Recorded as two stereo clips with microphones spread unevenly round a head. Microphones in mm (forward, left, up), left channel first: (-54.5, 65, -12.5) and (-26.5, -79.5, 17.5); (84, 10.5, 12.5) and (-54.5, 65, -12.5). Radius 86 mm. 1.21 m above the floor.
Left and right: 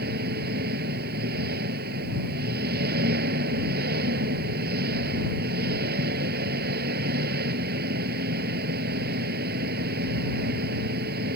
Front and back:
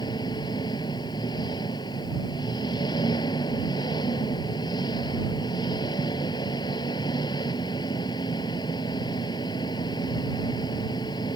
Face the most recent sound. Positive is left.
turn(degrees=-90)